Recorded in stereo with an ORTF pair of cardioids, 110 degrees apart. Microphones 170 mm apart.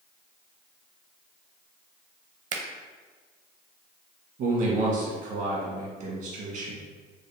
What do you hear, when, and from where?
2.5 s a finger snap: 50° right, 0.7 m
4.4 s a man speaking: 70° right, 1.4 m